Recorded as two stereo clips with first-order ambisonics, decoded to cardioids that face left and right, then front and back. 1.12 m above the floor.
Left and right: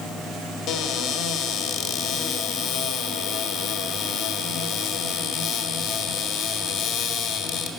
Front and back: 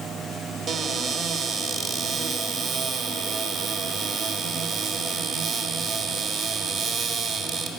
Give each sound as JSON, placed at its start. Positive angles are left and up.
{"t": 0.7, "sound": "a cupboard door", "azimuth_deg": 105, "distance_m": 1.4}